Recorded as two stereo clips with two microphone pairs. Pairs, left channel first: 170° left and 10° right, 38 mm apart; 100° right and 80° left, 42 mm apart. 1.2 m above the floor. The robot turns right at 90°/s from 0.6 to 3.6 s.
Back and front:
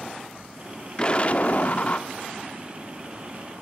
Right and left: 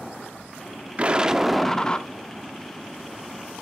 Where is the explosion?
115° left, 0.8 m; by 2.1 s 150° right, 0.8 m.